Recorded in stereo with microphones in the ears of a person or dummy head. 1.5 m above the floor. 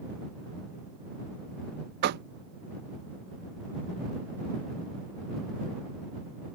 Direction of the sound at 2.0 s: 55° right (ahead or behind).